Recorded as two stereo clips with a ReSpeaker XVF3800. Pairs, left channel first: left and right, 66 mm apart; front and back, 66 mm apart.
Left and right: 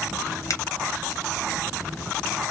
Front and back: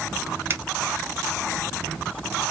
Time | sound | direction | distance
0.5 | a finger snap | 125° left | 0.7 m